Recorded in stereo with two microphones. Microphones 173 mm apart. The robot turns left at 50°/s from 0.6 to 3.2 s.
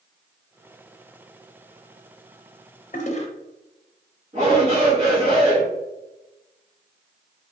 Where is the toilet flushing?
50° left (ahead or behind), 0.5 m; by 3.3 s 40° left (ahead or behind), 0.5 m.